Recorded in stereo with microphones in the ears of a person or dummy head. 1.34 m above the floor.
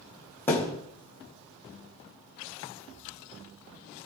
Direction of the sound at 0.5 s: 10° left (ahead or behind).